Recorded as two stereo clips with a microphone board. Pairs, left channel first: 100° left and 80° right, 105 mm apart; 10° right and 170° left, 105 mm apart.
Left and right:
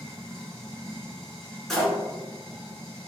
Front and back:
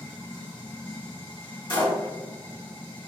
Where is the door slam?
15° left, 1.7 m.